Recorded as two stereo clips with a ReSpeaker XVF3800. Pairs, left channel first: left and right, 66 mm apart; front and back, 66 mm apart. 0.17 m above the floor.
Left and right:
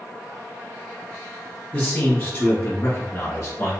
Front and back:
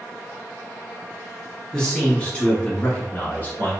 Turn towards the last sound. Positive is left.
turn(degrees=50)